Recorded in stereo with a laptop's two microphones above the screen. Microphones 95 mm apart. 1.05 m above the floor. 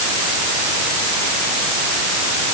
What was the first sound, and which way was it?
Only background noise.